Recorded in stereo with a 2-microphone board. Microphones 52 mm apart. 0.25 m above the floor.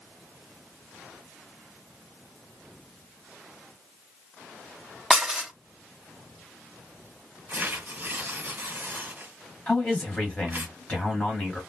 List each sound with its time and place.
5.1 s dishes clattering: 10° right (ahead or behind), 0.7 m
7.5 s tearing paper: 35° right (ahead or behind), 1.6 m
9.7 s a man speaking: 25° left (ahead or behind), 1.7 m